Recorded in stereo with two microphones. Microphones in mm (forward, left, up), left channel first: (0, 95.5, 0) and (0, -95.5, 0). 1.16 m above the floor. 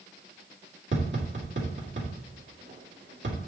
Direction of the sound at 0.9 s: 70° right (ahead or behind).